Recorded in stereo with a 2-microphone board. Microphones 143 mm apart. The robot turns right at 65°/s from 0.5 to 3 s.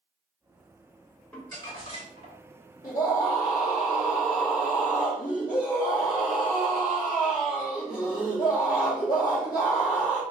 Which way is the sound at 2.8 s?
60° left (ahead or behind).